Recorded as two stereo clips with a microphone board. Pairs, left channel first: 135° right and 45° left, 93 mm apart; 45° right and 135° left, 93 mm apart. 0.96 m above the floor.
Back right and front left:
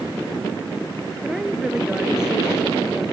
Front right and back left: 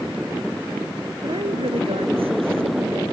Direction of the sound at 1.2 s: 130° left.